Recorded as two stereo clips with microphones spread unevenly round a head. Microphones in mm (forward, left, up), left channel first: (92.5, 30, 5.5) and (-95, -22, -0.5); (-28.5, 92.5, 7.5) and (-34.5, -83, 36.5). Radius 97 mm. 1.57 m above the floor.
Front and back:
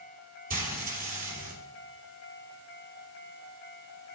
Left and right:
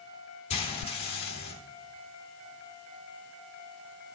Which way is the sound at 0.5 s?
145° left.